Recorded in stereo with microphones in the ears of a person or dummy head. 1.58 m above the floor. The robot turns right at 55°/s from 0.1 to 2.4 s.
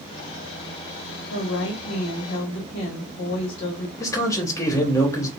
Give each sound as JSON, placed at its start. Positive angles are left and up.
{"t": 1.3, "sound": "a woman speaking", "azimuth_deg": 75, "distance_m": 0.9}
{"t": 4.0, "sound": "a man speaking", "side_deg": 15, "distance_m": 0.9}